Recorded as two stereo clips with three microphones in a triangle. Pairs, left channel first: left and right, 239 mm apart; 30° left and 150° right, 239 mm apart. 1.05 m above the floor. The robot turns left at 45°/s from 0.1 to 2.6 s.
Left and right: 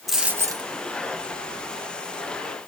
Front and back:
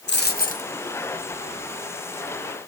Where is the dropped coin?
Straight ahead, 0.8 m; by 0.7 s 25° right, 0.8 m.